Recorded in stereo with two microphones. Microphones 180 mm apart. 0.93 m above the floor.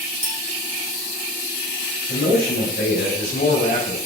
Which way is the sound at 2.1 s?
60° left (ahead or behind).